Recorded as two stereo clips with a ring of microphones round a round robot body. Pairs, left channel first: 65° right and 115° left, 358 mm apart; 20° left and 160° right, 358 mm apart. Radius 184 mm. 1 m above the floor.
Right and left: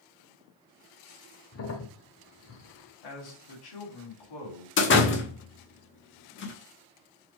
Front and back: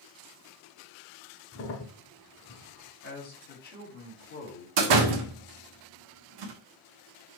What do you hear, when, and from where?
1.5 s a crack: 25° right, 1.0 m
3.0 s a man speaking: 45° right, 3.5 m
4.8 s a door slam: 130° right, 1.3 m